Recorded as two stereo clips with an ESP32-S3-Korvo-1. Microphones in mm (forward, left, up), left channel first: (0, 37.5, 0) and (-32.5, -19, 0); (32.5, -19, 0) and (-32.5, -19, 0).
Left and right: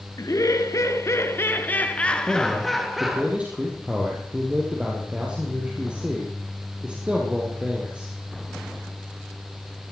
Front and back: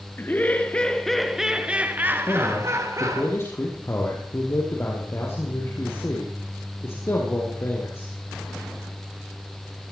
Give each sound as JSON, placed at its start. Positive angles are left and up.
{"t": 0.2, "sound": "laughter", "azimuth_deg": 55, "distance_m": 2.5}
{"t": 2.3, "sound": "a man speaking", "azimuth_deg": -50, "distance_m": 3.5}